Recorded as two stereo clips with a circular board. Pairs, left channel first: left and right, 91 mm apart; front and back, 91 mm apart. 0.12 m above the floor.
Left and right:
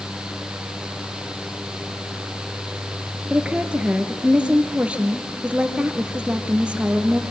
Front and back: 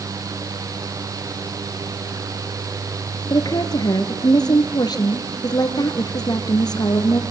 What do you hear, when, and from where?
3.3 s a woman speaking: 15° right, 2.0 m